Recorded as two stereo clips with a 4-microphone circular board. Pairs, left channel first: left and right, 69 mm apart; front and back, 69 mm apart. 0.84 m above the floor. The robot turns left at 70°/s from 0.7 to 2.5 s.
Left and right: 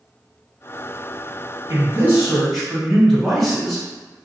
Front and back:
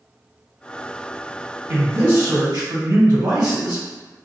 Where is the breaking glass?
No breaking glass in this recording.